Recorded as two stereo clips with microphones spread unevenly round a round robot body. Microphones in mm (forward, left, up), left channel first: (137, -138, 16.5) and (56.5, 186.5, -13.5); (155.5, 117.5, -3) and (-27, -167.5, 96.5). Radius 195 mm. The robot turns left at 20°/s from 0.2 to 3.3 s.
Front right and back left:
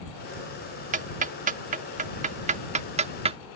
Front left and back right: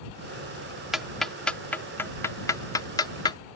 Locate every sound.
0.9 s ticking: 115° left; by 3.4 s 70° left